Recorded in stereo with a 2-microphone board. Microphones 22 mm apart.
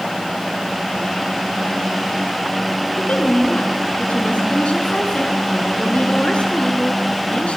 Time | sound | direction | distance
3.0 | a woman speaking | 70° left (ahead or behind) | 5 m